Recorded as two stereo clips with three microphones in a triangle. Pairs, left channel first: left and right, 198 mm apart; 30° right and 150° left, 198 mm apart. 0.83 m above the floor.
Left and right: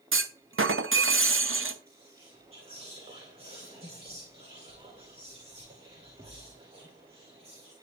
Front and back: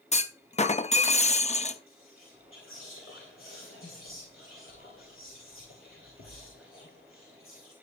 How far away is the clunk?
About 0.7 m.